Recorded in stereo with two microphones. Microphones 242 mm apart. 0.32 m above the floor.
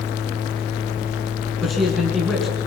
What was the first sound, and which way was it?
A man speaking, centre (ahead or behind).